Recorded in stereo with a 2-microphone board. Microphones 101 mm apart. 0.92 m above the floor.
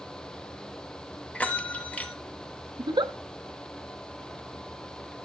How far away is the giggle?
About 0.6 m.